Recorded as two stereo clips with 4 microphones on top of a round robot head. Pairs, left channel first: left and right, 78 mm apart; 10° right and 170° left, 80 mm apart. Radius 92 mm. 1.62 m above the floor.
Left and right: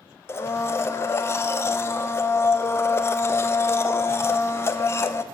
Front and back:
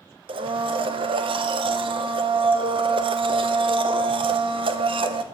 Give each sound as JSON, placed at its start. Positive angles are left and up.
{"t": 0.3, "sound": "a blender", "azimuth_deg": 150, "distance_m": 0.7}